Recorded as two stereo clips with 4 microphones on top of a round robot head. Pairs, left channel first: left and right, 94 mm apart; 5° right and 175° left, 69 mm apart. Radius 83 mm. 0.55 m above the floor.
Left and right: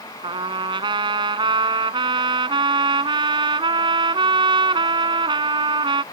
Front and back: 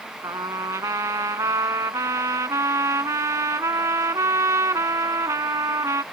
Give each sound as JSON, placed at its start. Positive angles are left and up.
{"t": 0.2, "sound": "a trumpet", "azimuth_deg": -125}